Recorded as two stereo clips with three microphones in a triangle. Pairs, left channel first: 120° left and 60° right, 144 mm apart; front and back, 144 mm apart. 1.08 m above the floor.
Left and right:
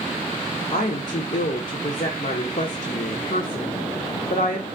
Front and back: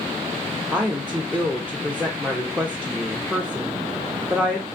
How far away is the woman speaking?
About 0.5 m.